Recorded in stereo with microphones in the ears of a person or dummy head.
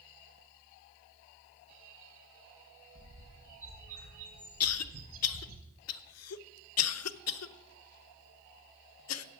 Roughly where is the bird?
Right.